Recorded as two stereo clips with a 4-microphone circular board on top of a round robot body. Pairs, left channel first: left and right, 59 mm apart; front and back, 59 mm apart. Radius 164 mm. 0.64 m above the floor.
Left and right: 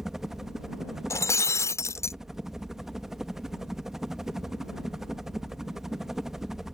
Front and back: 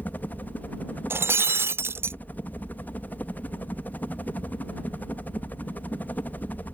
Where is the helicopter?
10° right.